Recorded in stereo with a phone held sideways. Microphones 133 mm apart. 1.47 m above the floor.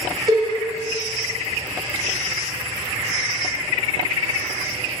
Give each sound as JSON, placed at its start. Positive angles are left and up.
{"t": 0.3, "sound": "a cowbell", "side_deg": -30, "distance_m": 2.0}